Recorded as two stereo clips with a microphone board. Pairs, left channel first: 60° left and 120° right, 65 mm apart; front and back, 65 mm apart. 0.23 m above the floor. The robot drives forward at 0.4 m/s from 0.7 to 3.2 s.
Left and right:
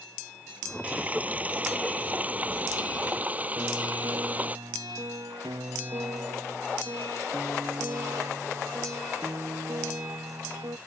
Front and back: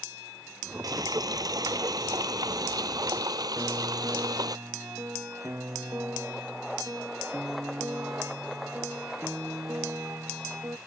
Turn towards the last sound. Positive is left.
turn(degrees=-130)